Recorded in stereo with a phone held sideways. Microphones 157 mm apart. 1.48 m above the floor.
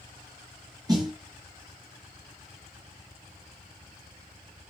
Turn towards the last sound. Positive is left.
turn(degrees=-25)  # may be behind; listen again after turning